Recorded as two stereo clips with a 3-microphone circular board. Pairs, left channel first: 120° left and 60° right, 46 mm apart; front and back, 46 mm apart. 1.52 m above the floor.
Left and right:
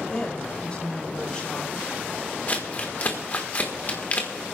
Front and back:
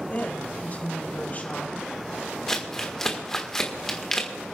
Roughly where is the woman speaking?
Ahead left.